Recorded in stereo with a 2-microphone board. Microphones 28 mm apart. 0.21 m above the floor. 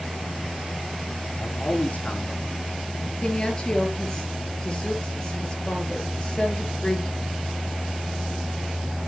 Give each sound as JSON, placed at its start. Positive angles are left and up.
{"t": 1.4, "sound": "a man speaking", "side_deg": 55, "distance_m": 3.0}
{"t": 3.2, "sound": "a woman speaking", "side_deg": 25, "distance_m": 4.0}